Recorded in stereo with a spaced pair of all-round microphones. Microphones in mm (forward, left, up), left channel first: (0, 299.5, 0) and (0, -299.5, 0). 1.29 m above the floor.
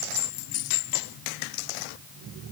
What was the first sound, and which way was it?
Only background noise.